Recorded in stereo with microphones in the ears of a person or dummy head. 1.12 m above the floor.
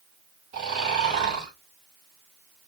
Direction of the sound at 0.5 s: 50° right (ahead or behind).